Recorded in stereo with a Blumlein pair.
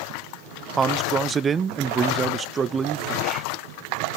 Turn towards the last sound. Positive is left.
turn(degrees=-20)